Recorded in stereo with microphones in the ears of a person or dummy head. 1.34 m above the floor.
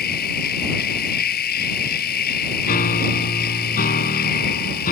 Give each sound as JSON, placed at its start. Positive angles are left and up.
{"t": 0.0, "sound": "a machine running", "side_deg": 55}
{"t": 2.6, "sound": "a piano", "side_deg": 50}